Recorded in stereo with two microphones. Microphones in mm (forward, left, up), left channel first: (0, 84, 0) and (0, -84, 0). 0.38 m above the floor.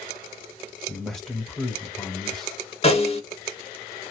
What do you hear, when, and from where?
0.9 s a man speaking: 5° left (ahead or behind), 1.0 m
2.8 s a snare drum: 40° left (ahead or behind), 1.0 m